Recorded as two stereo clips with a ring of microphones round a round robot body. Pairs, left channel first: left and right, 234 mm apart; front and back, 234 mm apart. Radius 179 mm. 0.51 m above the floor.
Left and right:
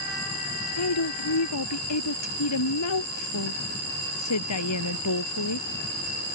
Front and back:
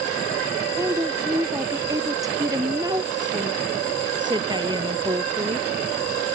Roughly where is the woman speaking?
Left.